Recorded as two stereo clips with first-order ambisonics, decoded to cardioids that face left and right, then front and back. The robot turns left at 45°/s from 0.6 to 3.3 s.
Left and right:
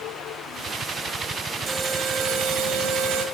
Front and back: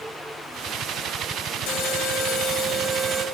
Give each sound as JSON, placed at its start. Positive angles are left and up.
{"t": 1.7, "sound": "an alarm", "azimuth_deg": -20, "distance_m": 3.5}